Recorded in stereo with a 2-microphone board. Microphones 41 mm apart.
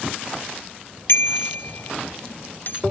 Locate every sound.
1.1 s a bicycle bell: 65° left (ahead or behind); by 2.8 s 50° left (ahead or behind)